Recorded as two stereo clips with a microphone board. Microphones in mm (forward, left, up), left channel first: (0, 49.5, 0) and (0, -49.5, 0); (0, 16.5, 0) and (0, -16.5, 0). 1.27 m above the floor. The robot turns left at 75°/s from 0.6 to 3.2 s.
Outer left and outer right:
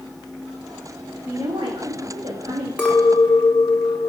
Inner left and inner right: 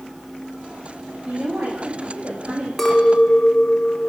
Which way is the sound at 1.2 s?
20° right.